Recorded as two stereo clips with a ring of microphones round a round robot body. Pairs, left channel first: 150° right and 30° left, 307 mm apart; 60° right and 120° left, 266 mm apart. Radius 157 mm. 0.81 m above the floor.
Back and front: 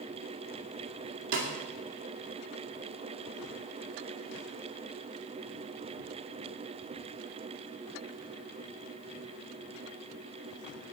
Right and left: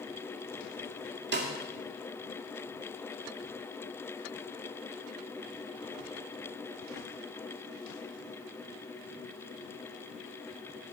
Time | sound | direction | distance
1.3 | a snare drum | 75° left | 2 m